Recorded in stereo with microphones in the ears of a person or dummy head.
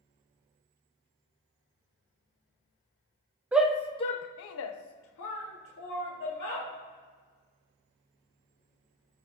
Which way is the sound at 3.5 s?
10° right (ahead or behind).